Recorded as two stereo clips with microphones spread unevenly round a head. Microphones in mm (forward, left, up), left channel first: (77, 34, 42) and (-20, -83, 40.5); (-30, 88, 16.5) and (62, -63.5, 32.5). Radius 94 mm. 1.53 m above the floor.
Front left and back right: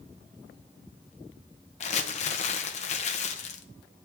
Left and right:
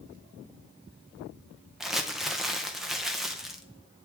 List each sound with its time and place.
1.8 s crumpling: 25° left, 0.6 m